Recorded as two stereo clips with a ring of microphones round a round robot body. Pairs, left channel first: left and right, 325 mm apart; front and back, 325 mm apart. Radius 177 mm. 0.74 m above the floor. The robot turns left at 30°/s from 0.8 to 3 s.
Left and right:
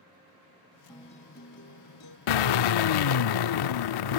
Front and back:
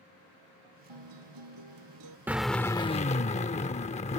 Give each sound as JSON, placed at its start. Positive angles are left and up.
{"t": 0.9, "sound": "a guitar", "azimuth_deg": 170}
{"t": 2.3, "sound": "a drill", "azimuth_deg": 95}